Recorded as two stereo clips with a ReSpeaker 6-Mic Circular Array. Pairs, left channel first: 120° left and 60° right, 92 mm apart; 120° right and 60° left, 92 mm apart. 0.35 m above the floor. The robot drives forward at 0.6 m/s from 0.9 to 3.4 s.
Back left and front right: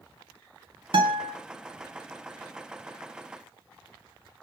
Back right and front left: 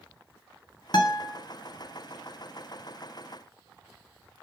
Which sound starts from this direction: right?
A guitar, at 0.9 s.